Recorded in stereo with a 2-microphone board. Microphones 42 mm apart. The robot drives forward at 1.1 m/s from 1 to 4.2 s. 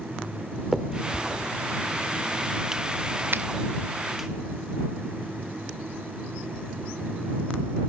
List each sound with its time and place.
0.7 s a finger snap: 10° right (ahead or behind), 1.3 m; by 4.3 s 5° right (ahead or behind), 2.5 m
3.3 s a finger snap: 55° right (ahead or behind), 1.8 m